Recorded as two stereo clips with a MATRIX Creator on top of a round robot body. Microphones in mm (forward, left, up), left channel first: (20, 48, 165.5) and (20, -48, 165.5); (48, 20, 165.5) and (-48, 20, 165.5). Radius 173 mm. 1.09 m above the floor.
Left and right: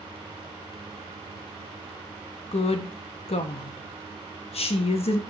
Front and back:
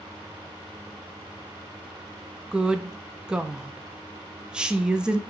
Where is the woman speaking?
100° left, 0.5 m.